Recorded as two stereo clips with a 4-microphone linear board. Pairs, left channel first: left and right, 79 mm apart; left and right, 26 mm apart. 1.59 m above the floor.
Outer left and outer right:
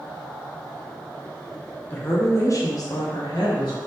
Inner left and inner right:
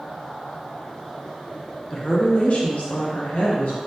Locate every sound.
1.9 s a woman speaking: 20° left (ahead or behind), 0.7 m; by 3.8 s 65° left (ahead or behind), 1.4 m